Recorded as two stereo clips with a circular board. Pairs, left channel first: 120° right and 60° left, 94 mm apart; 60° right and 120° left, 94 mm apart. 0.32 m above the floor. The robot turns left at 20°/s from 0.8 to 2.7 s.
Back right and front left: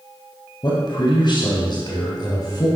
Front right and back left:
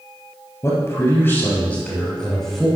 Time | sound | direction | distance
0.6 | a man speaking | 105° right | 2 m